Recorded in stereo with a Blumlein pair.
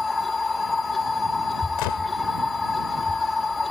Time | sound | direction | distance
0.0 | a machine running | 10° left | ?
1.8 | a gunshot | 45° left | ?